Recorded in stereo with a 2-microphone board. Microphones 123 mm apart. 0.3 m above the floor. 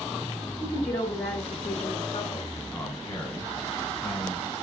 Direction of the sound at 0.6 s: 60° left (ahead or behind).